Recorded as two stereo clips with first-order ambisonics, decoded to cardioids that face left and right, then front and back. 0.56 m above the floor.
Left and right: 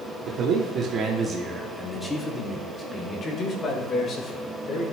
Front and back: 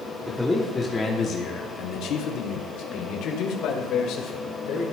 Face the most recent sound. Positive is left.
turn(degrees=40)